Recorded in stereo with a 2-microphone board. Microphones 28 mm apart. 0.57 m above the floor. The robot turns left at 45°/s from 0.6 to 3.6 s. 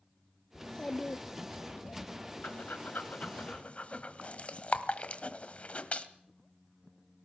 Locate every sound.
0.6 s a child speaking: 160° left, 0.6 m; by 2.0 s 95° left, 0.6 m
2.4 s breathing: 80° left, 1.4 m; by 6.1 s 45° left (ahead or behind), 1.4 m